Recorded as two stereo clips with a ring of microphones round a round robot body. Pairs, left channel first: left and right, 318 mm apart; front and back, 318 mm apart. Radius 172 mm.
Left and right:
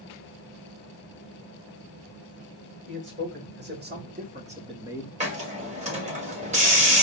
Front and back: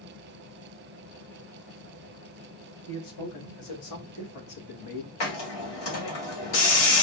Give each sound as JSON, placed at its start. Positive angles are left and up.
{"t": 2.9, "sound": "a man speaking", "azimuth_deg": -35, "distance_m": 3.0}
{"t": 5.2, "sound": "a hiss", "azimuth_deg": -20, "distance_m": 2.0}